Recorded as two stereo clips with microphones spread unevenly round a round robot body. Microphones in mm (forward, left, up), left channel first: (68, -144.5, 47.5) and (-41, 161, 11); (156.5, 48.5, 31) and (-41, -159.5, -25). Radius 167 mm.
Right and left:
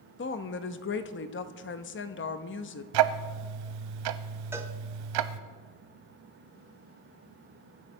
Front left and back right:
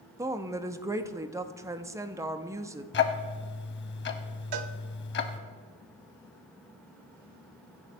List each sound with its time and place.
0.2 s a woman speaking: 90° right, 0.8 m
2.9 s ticking: 90° left, 0.8 m
4.5 s a cowbell: 165° right, 0.7 m